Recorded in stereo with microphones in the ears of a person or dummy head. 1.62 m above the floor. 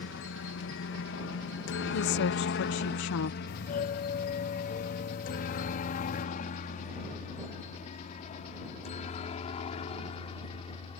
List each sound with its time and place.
0.0 s a helicopter: 60° left (ahead or behind); by 11.0 s 25° left (ahead or behind)
1.9 s a woman speaking: 60° left (ahead or behind)
3.5 s a doorbell: 35° left (ahead or behind)